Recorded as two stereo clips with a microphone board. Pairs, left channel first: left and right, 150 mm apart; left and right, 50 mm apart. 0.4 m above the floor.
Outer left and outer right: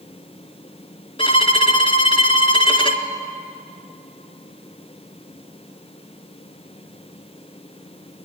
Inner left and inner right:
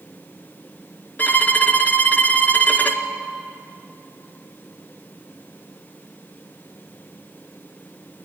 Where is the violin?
35° left (ahead or behind), 1.9 m.